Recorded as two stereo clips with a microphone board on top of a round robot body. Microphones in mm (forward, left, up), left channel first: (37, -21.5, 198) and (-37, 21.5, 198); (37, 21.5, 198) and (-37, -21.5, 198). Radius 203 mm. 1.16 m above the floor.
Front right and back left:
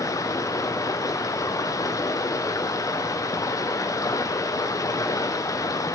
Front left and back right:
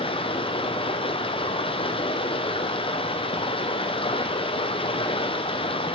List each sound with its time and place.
0.0 s running water: 25° left, 0.7 m